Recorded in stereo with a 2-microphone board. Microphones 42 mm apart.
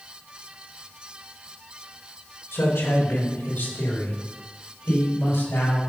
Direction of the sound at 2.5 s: 75° left (ahead or behind).